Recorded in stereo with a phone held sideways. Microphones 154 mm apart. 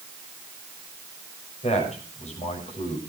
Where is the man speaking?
45° left (ahead or behind), 6.5 m.